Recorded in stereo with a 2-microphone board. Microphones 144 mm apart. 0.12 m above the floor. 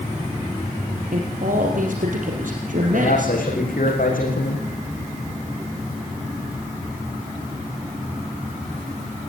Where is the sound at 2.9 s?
70° left (ahead or behind), 8 m.